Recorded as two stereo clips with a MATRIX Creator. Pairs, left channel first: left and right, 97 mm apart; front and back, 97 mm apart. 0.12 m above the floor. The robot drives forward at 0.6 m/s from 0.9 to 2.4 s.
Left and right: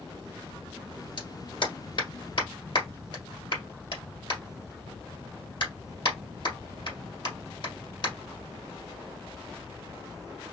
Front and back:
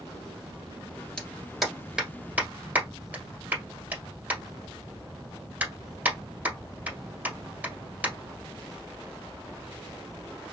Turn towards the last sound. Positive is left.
turn(degrees=110)